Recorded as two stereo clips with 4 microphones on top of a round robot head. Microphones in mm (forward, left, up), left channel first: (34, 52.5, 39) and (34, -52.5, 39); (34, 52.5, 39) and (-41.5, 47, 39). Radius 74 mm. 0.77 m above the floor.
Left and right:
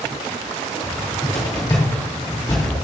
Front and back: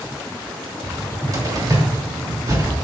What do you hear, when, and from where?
0.8 s a cupboard door: 145° left, 3 m